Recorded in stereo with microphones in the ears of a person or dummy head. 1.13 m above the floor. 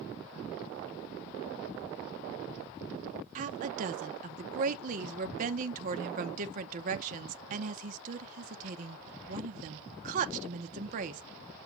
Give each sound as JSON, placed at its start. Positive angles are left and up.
{"t": 3.4, "sound": "a woman speaking", "side_deg": -45, "distance_m": 1.0}